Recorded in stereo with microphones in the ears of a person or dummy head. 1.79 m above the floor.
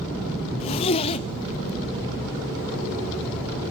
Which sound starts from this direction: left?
A zipper, at 0.6 s.